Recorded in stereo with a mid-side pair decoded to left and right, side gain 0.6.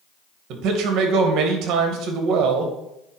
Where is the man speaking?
60° right, 1.9 m.